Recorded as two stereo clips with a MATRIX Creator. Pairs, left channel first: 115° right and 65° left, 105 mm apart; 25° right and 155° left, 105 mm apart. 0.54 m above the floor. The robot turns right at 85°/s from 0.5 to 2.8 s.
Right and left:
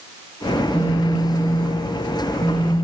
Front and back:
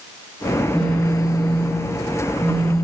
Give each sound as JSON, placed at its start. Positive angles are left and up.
{"t": 0.6, "sound": "a phone buzzing", "azimuth_deg": -125, "distance_m": 7.5}